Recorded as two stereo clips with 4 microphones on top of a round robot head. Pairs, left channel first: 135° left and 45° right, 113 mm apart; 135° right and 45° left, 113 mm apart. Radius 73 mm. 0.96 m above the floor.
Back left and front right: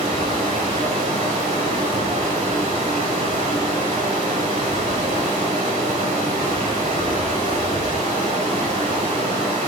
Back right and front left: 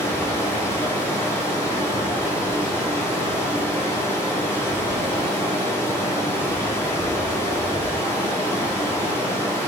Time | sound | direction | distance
0.0 | running water | 65° right | 1.0 m